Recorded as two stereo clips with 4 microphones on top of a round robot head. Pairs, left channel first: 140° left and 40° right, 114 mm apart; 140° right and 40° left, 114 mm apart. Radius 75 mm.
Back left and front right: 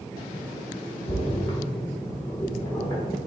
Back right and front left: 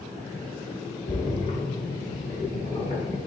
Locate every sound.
1.1 s a splash: 160° right, 1.0 m